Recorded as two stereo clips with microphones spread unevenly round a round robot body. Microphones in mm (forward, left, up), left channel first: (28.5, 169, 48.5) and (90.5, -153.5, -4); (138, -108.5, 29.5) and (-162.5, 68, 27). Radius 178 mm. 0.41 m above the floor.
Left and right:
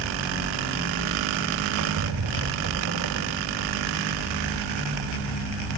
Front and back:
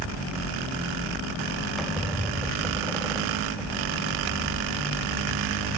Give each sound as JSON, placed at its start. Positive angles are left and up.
{"t": 1.8, "sound": "a squeak", "azimuth_deg": -120, "distance_m": 0.7}